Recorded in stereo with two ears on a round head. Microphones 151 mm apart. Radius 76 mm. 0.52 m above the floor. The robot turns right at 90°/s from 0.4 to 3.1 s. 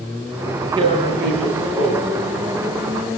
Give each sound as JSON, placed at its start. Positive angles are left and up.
{"t": 0.8, "sound": "tearing paper", "azimuth_deg": -155, "distance_m": 9.0}